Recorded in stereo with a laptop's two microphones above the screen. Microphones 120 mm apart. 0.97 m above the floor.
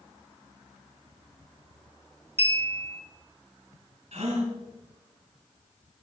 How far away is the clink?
About 1.7 m.